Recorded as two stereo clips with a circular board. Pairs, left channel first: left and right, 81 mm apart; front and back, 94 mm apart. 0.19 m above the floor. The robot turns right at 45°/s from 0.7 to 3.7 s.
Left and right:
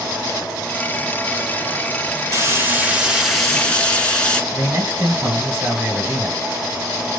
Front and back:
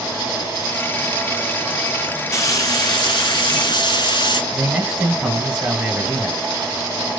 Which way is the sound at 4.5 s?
110° right.